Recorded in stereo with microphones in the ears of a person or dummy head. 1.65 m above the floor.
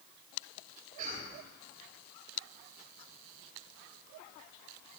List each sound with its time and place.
1.0 s a cough: 45° right (ahead or behind), 5 m